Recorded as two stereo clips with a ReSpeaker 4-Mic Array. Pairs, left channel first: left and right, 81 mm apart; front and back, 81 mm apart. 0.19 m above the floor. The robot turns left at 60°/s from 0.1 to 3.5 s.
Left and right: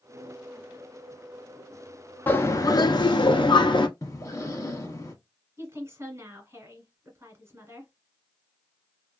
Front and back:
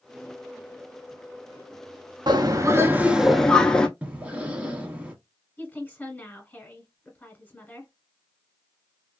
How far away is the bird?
About 0.5 m.